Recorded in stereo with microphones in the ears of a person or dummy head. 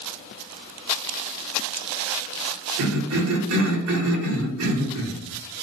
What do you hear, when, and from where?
2.8 s a cough: 70° right (ahead or behind), 0.9 m